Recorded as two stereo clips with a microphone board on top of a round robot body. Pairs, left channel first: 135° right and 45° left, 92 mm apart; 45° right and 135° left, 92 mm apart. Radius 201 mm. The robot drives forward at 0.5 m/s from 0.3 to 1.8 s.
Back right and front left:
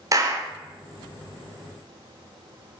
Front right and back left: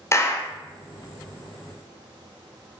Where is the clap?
5° left, 1.4 m.